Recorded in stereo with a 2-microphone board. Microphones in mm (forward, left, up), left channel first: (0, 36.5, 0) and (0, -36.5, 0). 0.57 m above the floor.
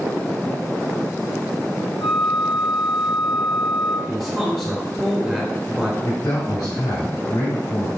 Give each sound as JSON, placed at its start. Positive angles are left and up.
{"t": 2.0, "sound": "a flute", "side_deg": 80, "distance_m": 1.5}
{"t": 4.1, "sound": "a man speaking", "side_deg": -5, "distance_m": 1.9}
{"t": 6.0, "sound": "a man speaking", "side_deg": 70, "distance_m": 3.0}